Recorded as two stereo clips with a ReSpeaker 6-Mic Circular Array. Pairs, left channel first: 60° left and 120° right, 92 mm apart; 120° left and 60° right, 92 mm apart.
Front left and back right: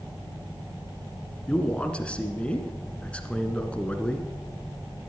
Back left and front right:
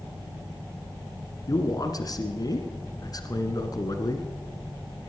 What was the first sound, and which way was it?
A man speaking, 135° left.